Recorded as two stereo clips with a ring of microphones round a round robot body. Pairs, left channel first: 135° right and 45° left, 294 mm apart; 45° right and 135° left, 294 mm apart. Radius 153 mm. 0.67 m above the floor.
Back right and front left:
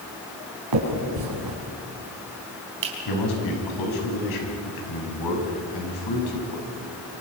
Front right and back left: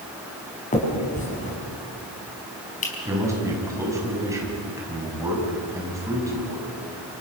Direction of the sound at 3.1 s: 145° right.